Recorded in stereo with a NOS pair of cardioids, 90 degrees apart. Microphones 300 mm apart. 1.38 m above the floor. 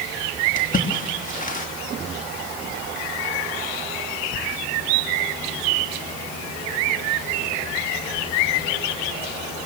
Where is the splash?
25° left, 3 m.